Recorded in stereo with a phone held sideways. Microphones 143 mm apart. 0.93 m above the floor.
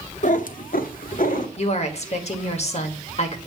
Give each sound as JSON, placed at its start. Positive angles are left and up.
{"t": 0.2, "sound": "a cat meowing", "side_deg": 60, "distance_m": 0.7}
{"t": 1.6, "sound": "a woman speaking", "side_deg": 50, "distance_m": 1.4}